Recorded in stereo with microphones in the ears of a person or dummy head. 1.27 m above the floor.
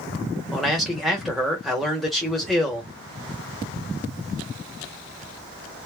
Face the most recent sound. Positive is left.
turn(degrees=0)  # may be behind; listen again after turning